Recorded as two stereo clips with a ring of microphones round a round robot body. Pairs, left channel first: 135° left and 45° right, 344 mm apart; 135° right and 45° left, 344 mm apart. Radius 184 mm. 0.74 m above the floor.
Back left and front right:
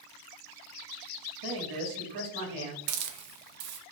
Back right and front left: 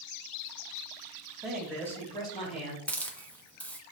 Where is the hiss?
50° right, 0.7 m.